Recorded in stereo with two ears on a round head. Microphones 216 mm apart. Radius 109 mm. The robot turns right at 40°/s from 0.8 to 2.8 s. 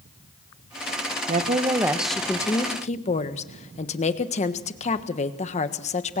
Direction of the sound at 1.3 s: 30° right.